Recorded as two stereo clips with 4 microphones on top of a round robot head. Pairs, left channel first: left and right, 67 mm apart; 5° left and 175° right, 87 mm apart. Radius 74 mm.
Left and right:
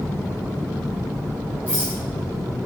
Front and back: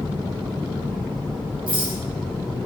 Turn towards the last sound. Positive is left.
turn(degrees=-155)